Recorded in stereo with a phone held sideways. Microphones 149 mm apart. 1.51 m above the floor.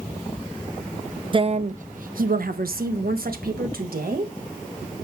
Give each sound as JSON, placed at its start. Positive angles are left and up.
{"t": 1.3, "sound": "a woman speaking", "side_deg": -35, "distance_m": 0.5}